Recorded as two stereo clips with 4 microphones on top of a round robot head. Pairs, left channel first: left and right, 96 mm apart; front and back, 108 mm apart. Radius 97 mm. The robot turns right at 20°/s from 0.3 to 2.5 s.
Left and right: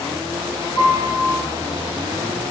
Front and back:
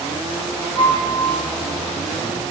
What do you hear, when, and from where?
0.8 s a piano: 30° left, 8 m; by 1.4 s 45° left, 8 m